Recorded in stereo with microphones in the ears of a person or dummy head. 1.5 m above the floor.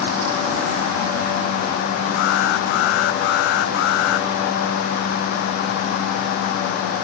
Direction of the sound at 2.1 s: 65° left (ahead or behind).